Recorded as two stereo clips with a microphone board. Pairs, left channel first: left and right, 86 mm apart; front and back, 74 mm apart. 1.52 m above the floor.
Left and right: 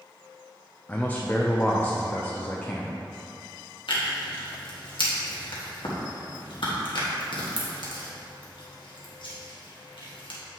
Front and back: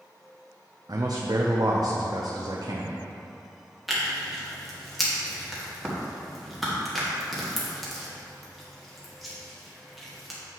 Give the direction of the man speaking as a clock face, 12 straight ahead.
7 o'clock.